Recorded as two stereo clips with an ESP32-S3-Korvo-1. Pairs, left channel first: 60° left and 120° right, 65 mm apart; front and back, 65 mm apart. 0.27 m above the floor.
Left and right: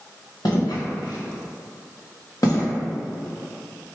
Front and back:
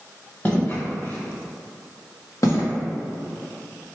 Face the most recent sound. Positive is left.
turn(degrees=25)